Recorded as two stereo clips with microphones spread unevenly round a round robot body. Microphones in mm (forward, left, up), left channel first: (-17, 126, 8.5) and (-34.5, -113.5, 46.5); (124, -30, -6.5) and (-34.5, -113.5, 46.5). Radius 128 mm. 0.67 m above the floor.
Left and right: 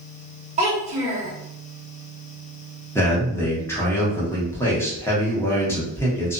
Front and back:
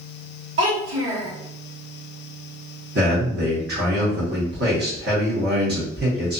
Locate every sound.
0.6 s a child speaking: 160° right, 1.3 m
3.0 s a man speaking: 160° left, 1.2 m